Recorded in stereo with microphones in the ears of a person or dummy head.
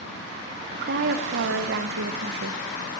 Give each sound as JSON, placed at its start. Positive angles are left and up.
{"t": 0.7, "sound": "a woman speaking", "side_deg": -55, "distance_m": 0.6}